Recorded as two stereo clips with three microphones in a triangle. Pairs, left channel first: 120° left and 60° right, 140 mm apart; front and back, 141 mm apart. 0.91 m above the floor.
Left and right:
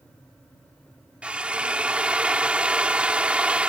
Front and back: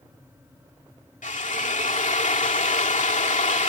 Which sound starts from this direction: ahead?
A drill, at 1.2 s.